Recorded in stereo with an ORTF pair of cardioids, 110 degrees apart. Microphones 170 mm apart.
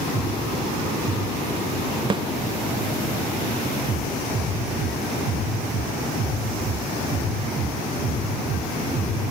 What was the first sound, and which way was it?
A snare drum, 30° right.